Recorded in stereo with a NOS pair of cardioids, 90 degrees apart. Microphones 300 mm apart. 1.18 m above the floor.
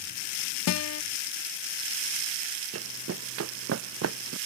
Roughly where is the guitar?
Ahead left.